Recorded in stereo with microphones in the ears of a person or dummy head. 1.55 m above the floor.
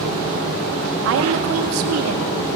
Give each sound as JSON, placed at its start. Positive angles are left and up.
{"t": 1.1, "sound": "a woman speaking", "side_deg": -75, "distance_m": 2.5}